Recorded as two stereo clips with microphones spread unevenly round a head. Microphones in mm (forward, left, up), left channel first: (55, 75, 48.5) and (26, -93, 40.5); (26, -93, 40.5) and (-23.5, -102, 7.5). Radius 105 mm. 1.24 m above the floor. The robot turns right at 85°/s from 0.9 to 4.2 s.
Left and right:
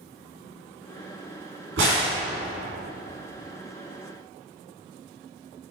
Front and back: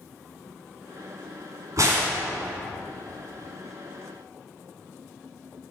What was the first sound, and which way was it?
A crack, 130° right.